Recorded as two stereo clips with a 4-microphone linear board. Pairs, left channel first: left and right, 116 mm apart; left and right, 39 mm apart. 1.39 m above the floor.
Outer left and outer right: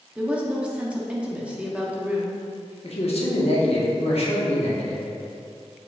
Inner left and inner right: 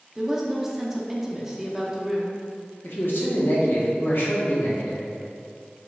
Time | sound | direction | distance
0.1 | a woman speaking | 10° right (ahead or behind) | 0.6 m
2.8 | a man speaking | 60° left (ahead or behind) | 0.8 m